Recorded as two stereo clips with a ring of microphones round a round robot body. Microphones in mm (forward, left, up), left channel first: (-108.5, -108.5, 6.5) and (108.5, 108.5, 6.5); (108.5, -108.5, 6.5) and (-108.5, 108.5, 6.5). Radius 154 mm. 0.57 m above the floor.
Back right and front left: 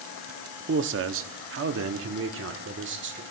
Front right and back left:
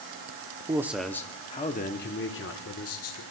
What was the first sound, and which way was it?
A man speaking, 65° left.